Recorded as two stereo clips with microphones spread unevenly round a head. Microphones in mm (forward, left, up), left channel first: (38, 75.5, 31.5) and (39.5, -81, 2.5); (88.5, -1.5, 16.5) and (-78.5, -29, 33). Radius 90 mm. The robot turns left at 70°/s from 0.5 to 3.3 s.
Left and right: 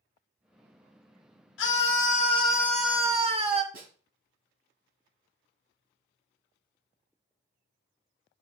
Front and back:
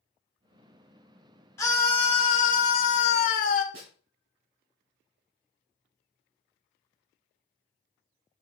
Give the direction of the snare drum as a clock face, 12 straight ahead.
5 o'clock.